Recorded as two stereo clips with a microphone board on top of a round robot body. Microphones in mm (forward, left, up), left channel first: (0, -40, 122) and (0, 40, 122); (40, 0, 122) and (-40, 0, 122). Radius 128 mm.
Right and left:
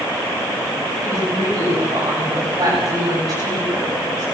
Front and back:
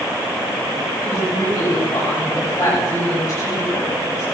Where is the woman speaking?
40° left, 9.5 m; by 4.2 s 45° left, 12.5 m.